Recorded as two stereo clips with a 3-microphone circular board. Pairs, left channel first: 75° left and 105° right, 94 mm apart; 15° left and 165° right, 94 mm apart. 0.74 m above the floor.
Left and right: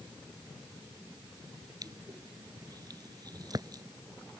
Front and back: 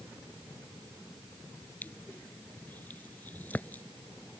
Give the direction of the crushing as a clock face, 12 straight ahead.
2 o'clock.